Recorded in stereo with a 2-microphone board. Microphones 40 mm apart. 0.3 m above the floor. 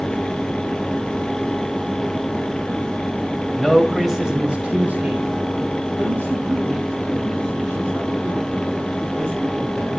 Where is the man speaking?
5° left (ahead or behind), 2.0 m; by 10.0 s 45° right (ahead or behind), 8 m.